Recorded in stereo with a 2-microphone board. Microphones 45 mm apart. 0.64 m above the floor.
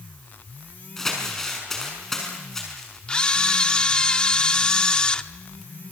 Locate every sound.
1.0 s crumpling: 10° left (ahead or behind), 6 m
3.1 s a camera shutter: 25° left (ahead or behind), 0.8 m